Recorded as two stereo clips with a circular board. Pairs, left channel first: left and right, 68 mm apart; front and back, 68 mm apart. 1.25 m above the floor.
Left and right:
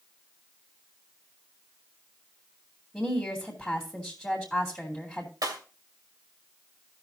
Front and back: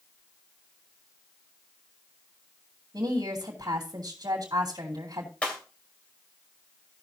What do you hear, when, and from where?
2.9 s a woman speaking: straight behind, 2.5 m
5.4 s breaking glass: 70° right, 2.5 m